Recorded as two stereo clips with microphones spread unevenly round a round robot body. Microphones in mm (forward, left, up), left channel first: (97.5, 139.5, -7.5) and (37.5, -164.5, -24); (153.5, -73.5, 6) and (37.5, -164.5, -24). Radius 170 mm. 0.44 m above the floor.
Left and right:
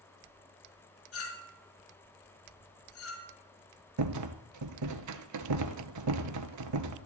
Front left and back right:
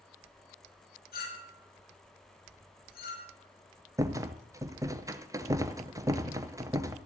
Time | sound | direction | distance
1.1 | a clink | 35° left | 3.5 m
4.0 | a rattle | 70° right | 1.2 m